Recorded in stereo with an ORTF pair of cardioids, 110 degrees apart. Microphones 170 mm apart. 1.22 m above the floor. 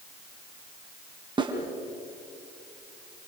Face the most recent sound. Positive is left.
turn(degrees=-25)